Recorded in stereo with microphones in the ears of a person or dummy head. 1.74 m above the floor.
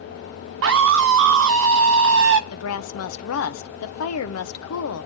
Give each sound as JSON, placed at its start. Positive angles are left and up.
{"t": 0.6, "sound": "a scream", "side_deg": -60, "distance_m": 0.8}
{"t": 2.5, "sound": "a woman speaking", "side_deg": 80, "distance_m": 1.3}